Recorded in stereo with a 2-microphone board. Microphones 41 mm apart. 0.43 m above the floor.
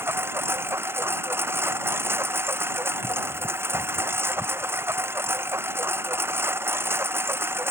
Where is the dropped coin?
I don't hear a dropped coin.